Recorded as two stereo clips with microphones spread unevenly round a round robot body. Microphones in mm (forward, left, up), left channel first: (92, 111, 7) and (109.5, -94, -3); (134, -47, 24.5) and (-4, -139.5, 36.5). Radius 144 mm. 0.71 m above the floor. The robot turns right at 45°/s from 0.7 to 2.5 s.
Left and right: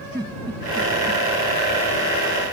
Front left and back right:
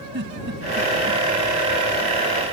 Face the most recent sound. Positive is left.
turn(degrees=-80)